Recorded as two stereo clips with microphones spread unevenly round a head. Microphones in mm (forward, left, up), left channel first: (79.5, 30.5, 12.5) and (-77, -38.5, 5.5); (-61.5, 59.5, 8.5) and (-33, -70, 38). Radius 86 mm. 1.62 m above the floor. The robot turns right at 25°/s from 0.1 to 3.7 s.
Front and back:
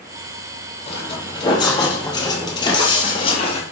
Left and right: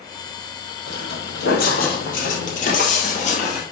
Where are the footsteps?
70° left, 3 m; by 3.6 s 60° left, 2 m.